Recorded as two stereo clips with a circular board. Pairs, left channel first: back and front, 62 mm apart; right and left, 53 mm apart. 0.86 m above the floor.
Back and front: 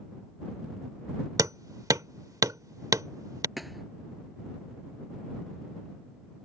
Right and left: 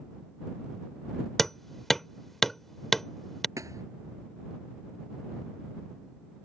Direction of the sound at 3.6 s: 90° left.